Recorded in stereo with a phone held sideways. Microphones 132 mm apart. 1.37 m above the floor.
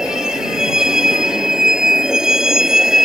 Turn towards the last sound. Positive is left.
turn(degrees=-5)  # may be behind; listen again after turning